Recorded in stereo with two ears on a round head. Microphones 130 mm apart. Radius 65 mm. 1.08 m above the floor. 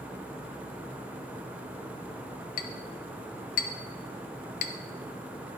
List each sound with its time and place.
2.6 s a clink: 65° left (ahead or behind), 0.7 m